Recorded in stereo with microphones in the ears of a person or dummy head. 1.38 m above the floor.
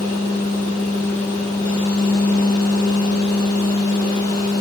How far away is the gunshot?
I don't hear a gunshot.